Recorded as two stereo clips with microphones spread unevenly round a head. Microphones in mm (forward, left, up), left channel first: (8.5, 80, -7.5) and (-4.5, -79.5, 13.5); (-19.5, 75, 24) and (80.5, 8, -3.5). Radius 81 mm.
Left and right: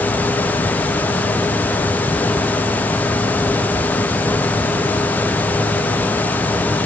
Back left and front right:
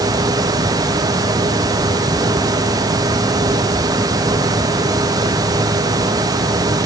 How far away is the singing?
No singing in this recording.